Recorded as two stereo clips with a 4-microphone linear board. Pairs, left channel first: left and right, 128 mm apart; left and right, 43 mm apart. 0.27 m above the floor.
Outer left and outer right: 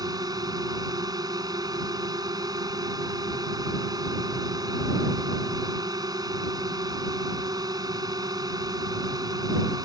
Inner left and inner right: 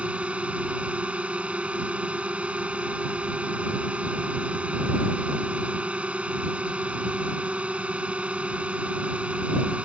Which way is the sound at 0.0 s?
30° right (ahead or behind).